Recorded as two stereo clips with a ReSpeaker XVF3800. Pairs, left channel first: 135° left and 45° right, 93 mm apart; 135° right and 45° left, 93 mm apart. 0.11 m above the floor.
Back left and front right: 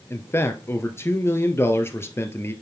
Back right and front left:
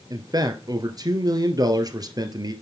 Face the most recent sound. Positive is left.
turn(degrees=75)